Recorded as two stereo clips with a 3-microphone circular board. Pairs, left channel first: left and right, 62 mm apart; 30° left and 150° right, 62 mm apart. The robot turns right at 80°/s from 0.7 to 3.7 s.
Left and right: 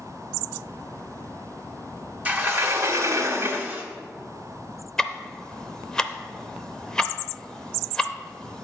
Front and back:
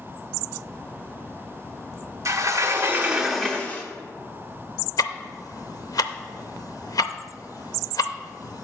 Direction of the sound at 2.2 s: 150° right.